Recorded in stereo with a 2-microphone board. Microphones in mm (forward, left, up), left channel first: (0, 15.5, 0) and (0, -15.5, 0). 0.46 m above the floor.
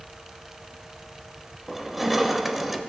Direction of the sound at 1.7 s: 10° right (ahead or behind).